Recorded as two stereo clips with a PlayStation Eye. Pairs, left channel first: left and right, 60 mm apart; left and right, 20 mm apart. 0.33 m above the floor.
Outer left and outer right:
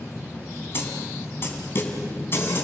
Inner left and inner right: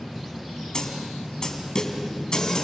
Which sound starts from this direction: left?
A snare drum, at 0.7 s.